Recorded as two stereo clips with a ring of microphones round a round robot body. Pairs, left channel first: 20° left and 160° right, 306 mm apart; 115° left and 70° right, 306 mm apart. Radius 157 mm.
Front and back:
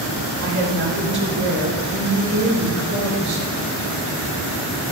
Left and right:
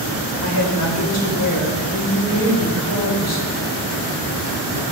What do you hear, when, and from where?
0.4 s a woman speaking: 150° left, 3 m